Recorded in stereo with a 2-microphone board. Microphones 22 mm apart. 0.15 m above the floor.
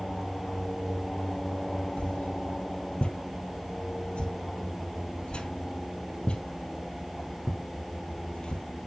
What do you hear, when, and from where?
2.0 s a whoosh: 65° left (ahead or behind), 1.1 m